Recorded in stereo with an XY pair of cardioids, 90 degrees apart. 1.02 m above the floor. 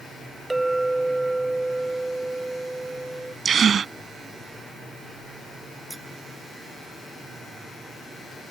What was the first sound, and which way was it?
A clink, 15° right.